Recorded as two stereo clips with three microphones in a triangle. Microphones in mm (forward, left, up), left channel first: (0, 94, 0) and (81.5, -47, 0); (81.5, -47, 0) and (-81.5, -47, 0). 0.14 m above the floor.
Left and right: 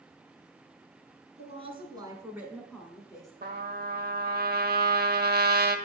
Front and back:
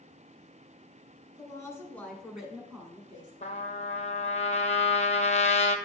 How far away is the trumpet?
About 0.8 m.